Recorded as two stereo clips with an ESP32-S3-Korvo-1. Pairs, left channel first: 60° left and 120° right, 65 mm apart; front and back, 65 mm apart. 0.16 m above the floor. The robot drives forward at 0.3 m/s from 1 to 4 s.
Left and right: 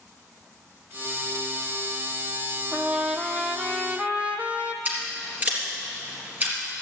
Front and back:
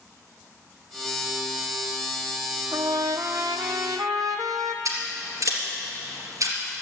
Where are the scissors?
Straight behind, 3.5 m.